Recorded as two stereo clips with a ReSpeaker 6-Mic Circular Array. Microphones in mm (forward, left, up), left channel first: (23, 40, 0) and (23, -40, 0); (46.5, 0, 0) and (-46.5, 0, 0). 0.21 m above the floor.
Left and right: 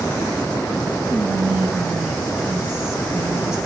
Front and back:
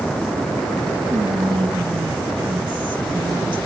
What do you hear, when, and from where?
1.1 s whispering: 165° right, 3 m